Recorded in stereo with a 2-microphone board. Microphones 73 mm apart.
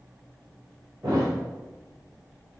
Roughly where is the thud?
Right.